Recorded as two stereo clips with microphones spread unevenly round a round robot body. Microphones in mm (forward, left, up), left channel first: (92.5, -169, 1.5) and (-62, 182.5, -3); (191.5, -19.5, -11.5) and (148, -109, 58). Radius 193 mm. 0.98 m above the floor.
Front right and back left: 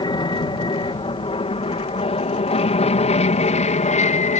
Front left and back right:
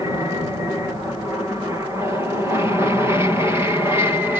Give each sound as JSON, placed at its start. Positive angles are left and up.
{"t": 0.0, "sound": "an aircraft", "azimuth_deg": -5}